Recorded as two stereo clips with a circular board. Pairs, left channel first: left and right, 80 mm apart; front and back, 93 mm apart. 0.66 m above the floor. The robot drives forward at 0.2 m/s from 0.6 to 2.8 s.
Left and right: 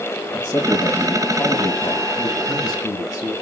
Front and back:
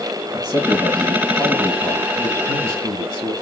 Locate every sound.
0.3 s a man speaking: 130° left, 3 m; by 3.3 s 140° left, 3 m